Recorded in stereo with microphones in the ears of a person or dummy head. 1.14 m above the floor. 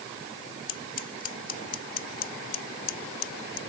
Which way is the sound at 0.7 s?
40° left (ahead or behind).